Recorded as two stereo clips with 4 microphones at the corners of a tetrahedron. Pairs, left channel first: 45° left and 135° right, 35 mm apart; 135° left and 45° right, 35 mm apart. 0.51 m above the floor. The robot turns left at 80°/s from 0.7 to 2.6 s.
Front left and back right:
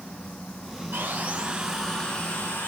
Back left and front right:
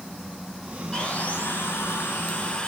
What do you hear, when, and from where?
0.9 s sawing: 160° right, 4.5 m; by 2.7 s 70° left, 4.5 m